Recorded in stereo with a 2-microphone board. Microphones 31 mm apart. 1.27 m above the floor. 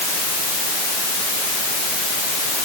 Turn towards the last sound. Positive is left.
No sound to turn to.